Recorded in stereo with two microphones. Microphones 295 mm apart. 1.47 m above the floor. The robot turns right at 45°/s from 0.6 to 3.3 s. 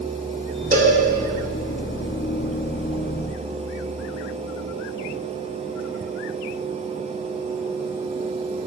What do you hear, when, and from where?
0.7 s a cowbell: 30° right (ahead or behind), 2.5 m; by 1.0 s 40° right (ahead or behind), 2.5 m